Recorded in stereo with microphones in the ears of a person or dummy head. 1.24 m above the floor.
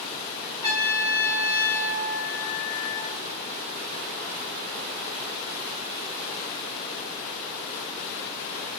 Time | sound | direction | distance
0.6 | a trumpet | 20° left (ahead or behind) | 1.8 m